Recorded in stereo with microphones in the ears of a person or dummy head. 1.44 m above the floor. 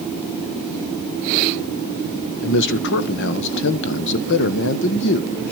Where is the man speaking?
65° left (ahead or behind), 1.2 m.